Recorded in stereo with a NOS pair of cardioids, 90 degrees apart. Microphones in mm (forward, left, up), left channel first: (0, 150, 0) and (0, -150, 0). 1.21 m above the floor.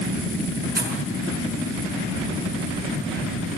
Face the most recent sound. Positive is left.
turn(degrees=-30)